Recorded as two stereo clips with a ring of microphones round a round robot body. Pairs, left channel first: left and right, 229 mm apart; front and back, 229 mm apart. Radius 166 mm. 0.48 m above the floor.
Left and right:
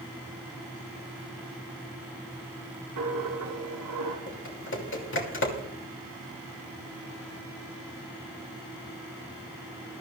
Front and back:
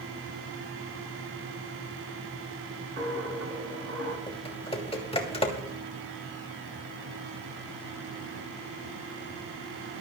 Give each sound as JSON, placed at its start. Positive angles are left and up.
{"t": 3.0, "sound": "a dropped coin", "azimuth_deg": -125, "distance_m": 3.0}
{"t": 4.3, "sound": "typing on a keyboard", "azimuth_deg": 65, "distance_m": 3.0}